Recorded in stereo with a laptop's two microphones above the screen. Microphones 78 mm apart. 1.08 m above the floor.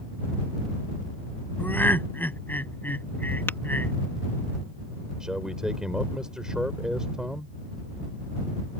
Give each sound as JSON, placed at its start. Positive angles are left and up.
{"t": 1.6, "sound": "laughter", "side_deg": 25}
{"t": 3.5, "sound": "tapping", "side_deg": 30}
{"t": 5.2, "sound": "a man speaking", "side_deg": -10}